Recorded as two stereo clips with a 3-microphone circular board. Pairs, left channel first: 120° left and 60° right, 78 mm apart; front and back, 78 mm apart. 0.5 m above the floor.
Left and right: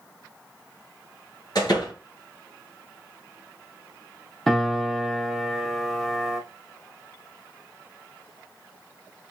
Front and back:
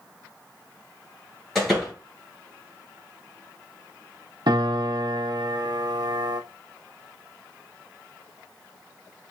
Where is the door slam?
85° left, 3 m.